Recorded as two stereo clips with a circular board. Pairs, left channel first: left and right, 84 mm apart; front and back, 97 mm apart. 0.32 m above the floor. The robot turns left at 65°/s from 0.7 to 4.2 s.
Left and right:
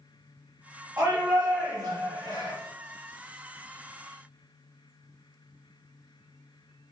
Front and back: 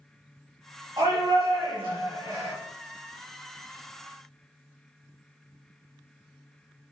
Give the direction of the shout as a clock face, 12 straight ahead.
5 o'clock.